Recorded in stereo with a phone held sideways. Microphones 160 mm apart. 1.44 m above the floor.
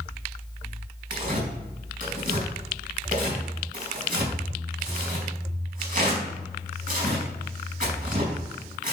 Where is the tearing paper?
55° right (ahead or behind), 5 m.